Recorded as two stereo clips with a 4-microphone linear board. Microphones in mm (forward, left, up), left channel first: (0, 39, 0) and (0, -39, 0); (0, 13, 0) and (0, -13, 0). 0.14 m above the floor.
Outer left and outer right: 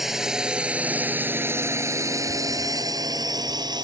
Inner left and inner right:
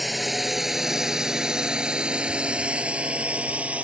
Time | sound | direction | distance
0.0 | a drone | 5° right (ahead or behind) | ?